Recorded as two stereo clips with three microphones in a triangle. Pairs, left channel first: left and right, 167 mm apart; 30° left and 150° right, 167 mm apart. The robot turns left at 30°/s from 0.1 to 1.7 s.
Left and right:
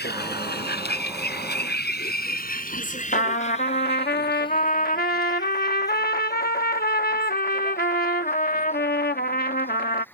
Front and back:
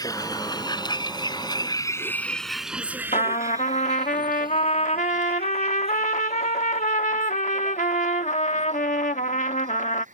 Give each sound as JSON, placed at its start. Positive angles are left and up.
{"t": 0.0, "sound": "a vehicle", "azimuth_deg": 95}
{"t": 3.1, "sound": "a trumpet", "azimuth_deg": 70}